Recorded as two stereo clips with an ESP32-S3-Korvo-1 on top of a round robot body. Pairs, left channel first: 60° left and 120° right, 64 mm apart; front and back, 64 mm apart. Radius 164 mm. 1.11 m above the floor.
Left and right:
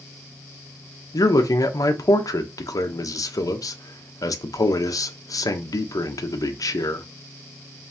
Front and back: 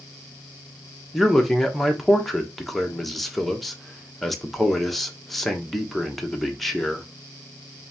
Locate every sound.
1.1 s a man speaking: 90° left, 0.9 m